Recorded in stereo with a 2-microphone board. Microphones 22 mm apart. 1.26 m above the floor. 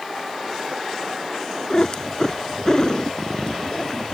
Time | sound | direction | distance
1.7 | a cat meowing | 35° left (ahead or behind) | ?